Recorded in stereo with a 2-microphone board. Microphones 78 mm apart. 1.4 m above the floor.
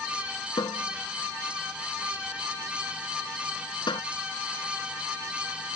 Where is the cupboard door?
75° left (ahead or behind).